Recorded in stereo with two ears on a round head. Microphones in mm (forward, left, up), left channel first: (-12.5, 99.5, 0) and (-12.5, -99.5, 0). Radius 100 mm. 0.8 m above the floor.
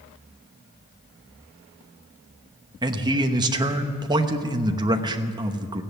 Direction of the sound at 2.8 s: 20° right (ahead or behind).